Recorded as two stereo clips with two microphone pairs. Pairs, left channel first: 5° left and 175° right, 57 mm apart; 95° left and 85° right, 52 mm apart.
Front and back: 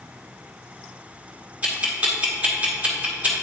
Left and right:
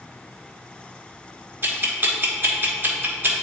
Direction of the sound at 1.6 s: 120° right.